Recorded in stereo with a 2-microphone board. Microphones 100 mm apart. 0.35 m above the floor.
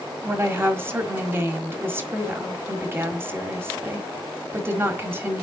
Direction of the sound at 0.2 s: 25° right (ahead or behind).